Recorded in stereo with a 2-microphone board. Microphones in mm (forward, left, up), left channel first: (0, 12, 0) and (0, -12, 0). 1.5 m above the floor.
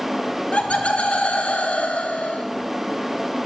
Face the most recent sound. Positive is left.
turn(degrees=60)  # may be behind; listen again after turning